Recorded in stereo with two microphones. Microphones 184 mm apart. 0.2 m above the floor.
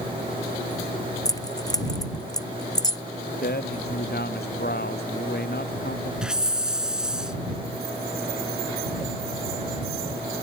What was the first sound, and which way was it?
Keys jangling, 20° left (ahead or behind).